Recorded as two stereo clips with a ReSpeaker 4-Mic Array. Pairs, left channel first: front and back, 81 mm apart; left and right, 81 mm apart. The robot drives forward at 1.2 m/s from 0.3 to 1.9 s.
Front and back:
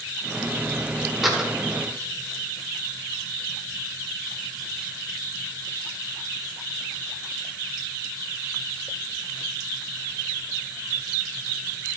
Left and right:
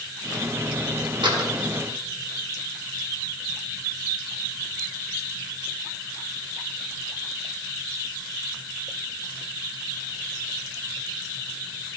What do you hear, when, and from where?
1.2 s a door slam: 90° right, 1.7 m; by 1.5 s 105° right, 1.7 m